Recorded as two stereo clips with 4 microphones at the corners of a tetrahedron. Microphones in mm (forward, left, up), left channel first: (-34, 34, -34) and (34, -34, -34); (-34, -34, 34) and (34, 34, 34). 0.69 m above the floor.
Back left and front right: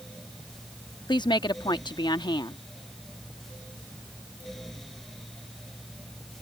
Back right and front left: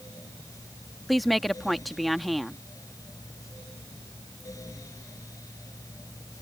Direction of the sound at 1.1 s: 135° left.